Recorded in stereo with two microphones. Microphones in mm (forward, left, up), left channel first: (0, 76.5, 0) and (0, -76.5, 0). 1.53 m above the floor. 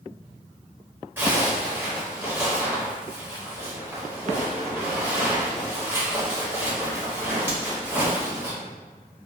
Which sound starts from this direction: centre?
A zipper, at 1.2 s.